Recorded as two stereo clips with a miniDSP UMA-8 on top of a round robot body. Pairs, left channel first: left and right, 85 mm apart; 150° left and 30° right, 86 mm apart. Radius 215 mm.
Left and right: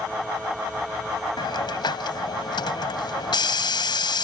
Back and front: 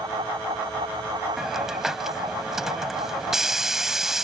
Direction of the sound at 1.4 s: 55° left.